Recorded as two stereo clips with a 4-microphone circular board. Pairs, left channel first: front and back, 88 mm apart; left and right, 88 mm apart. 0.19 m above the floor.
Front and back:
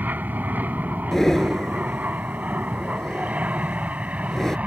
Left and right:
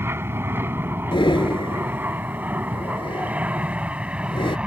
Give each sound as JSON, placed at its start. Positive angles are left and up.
{"t": 0.0, "sound": "an aircraft", "azimuth_deg": -125}
{"t": 1.1, "sound": "breathing", "azimuth_deg": 85}